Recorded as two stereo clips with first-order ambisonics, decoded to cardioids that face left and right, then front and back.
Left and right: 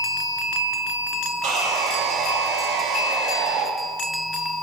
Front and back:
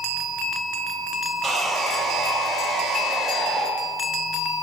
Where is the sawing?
100° right, 1.4 m.